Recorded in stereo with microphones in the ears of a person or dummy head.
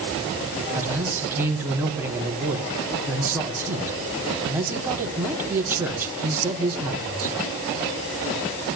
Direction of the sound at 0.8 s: 10° right (ahead or behind).